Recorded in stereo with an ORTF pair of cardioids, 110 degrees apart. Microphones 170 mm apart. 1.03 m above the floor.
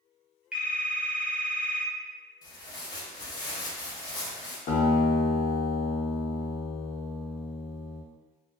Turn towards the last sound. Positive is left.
turn(degrees=55)